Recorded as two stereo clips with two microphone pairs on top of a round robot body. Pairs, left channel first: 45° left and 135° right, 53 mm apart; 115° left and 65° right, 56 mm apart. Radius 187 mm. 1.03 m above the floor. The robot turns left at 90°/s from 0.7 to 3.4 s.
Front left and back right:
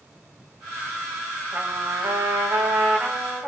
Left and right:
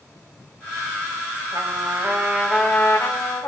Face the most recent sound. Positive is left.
turn(degrees=120)